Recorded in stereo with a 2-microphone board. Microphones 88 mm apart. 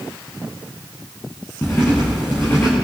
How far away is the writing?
About 5 m.